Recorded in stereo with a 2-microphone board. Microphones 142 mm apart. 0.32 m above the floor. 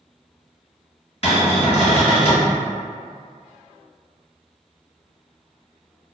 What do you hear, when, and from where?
1.2 s a cupboard door: 45° left (ahead or behind), 1.5 m